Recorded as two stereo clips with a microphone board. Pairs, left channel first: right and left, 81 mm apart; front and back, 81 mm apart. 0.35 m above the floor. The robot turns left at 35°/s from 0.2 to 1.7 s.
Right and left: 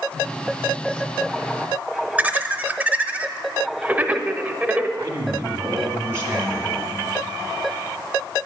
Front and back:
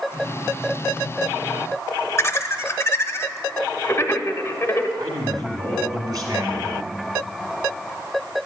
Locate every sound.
2.2 s laughter: 30° left, 1.0 m
5.0 s a man speaking: 155° left, 1.9 m